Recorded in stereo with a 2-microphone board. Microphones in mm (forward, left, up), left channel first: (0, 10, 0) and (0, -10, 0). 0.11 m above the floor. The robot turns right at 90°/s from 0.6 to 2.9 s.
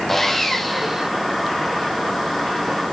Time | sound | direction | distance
0.1 | sawing | 170° left | 1.2 m